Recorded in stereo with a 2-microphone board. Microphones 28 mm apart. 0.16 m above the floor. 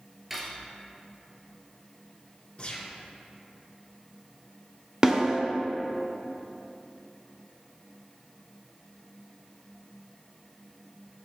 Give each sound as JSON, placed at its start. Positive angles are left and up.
{"t": 0.3, "sound": "cutlery clinking", "side_deg": -10, "distance_m": 1.5}
{"t": 2.6, "sound": "a gunshot", "side_deg": 40, "distance_m": 2.0}
{"t": 5.0, "sound": "a snare drum", "side_deg": -25, "distance_m": 1.0}